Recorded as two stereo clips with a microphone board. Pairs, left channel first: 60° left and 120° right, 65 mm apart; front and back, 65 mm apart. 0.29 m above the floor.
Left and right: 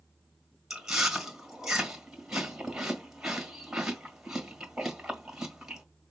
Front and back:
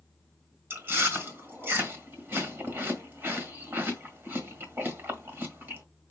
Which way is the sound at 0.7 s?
165° left.